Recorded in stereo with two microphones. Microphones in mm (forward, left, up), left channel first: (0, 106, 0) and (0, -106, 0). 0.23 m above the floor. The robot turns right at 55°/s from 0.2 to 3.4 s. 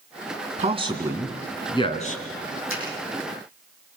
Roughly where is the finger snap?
Left.